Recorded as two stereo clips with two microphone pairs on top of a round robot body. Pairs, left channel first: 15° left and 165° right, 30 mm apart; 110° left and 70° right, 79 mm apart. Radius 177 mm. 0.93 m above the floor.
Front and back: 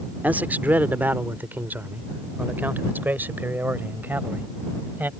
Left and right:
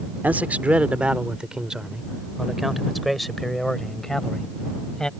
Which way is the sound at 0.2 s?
140° right.